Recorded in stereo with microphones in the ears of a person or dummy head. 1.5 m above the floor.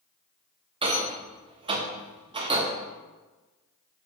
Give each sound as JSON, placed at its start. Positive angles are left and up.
{"t": 0.8, "sound": "a rattle", "side_deg": -30, "distance_m": 0.7}